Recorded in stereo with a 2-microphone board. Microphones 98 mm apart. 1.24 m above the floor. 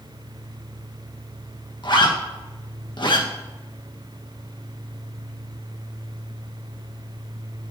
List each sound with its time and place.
1.8 s a zipper: 55° left (ahead or behind), 1.3 m